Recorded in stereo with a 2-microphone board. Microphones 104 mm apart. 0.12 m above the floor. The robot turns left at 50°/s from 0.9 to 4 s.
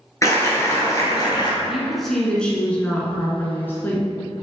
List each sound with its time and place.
0.2 s a clap: 140° left, 1.9 m; by 1.5 s 110° left, 1.9 m
1.6 s a woman speaking: 5° right (ahead or behind), 1.5 m; by 4.1 s 20° left (ahead or behind), 1.5 m